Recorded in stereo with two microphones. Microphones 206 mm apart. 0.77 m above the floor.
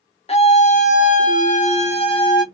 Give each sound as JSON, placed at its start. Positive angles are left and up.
{"t": 0.3, "sound": "a scream", "side_deg": 30, "distance_m": 1.1}